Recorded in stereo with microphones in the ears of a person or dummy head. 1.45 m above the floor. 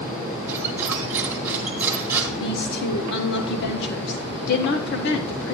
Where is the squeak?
10° right (ahead or behind), 1.5 m.